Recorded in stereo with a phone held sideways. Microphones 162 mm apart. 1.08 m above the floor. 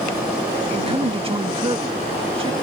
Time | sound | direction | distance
0.7 | a man speaking | 35° right (ahead or behind) | ?